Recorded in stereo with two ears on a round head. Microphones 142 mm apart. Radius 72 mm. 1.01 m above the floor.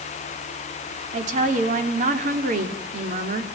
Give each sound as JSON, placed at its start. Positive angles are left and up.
{"t": 1.1, "sound": "a woman speaking", "side_deg": -55, "distance_m": 3.0}